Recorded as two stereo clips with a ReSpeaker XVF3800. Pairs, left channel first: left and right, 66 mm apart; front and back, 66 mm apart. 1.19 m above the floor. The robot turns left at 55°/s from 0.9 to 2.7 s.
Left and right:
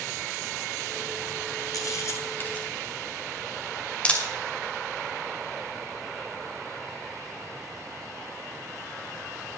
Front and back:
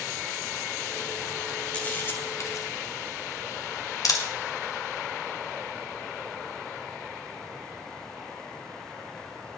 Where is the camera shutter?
70° left, 1.9 m; by 4.2 s 20° left, 1.9 m.